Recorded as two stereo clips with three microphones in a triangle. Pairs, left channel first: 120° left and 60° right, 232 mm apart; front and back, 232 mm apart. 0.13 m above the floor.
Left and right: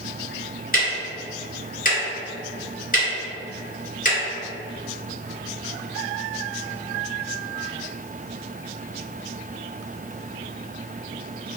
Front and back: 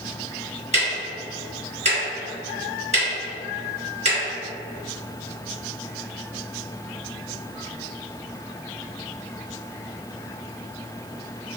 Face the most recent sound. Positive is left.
turn(degrees=140)